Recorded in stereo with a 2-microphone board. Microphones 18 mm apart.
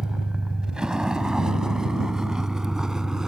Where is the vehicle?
45° right (ahead or behind); by 3.3 s 30° right (ahead or behind).